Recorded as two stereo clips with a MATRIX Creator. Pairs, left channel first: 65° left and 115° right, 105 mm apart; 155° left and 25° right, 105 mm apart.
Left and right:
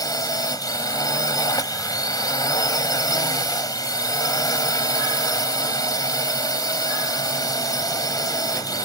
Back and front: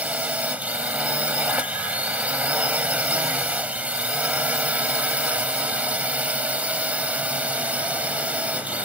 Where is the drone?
45° left.